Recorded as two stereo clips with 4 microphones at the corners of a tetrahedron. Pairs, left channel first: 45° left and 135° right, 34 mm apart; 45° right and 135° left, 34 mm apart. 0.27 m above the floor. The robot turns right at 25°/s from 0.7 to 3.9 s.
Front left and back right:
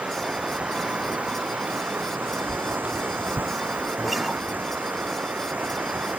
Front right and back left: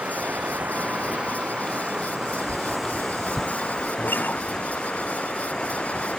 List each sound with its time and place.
0.0 s running water: 175° left; by 6.2 s 105° right
2.5 s a whoosh: 150° right; by 3.5 s 125° right
4.0 s a guitar: 50° right